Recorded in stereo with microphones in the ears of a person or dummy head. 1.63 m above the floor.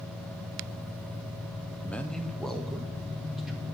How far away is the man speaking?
About 0.9 m.